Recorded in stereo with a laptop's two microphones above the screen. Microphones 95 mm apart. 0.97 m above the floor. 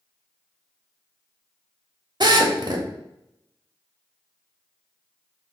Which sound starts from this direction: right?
A drill, at 2.2 s.